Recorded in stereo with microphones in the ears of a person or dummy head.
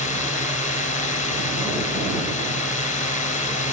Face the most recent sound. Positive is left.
turn(degrees=45)  # may be behind; listen again after turning